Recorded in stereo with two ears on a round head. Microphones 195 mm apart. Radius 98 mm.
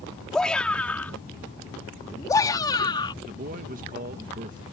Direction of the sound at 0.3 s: 5° left (ahead or behind).